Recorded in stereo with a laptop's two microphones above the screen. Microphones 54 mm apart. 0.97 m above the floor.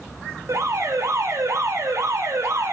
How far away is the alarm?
About 4.5 m.